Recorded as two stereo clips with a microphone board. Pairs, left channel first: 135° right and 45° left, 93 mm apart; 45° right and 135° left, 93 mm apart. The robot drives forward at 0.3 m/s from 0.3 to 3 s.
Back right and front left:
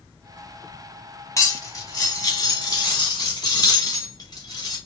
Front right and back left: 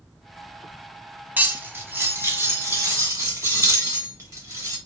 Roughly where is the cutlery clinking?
Behind.